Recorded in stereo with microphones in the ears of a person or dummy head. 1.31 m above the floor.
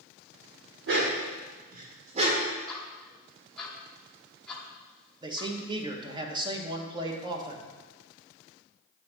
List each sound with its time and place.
0.9 s a dog barking: 65° right (ahead or behind), 1.7 m; by 2.5 s 30° right (ahead or behind), 1.8 m
2.7 s ticking: 5° left (ahead or behind), 1.3 m
5.2 s a man speaking: 25° right (ahead or behind), 1.2 m